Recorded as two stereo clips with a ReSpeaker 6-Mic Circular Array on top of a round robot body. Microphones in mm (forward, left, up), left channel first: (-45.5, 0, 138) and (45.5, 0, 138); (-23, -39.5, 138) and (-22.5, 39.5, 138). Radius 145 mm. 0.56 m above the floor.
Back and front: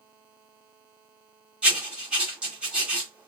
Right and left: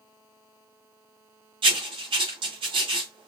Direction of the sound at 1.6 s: 80° left.